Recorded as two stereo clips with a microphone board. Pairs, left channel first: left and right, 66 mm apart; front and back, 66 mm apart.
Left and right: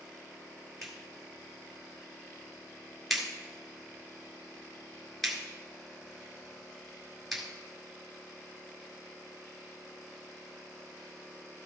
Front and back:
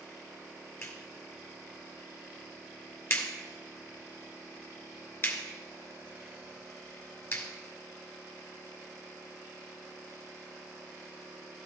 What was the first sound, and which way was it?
A clap, straight ahead.